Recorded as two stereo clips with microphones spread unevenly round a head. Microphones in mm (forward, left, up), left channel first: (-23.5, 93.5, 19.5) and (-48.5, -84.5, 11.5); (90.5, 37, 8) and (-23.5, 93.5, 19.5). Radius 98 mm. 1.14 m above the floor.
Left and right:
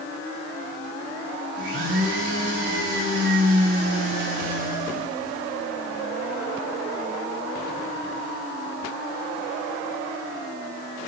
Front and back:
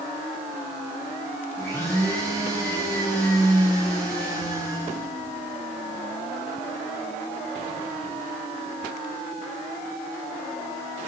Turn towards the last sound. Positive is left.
turn(degrees=-105)